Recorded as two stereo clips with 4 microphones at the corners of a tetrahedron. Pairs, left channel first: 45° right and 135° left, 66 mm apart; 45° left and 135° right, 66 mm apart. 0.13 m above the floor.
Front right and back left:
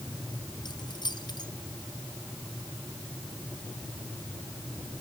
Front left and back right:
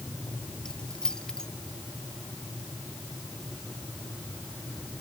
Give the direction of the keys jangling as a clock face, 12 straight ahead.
1 o'clock.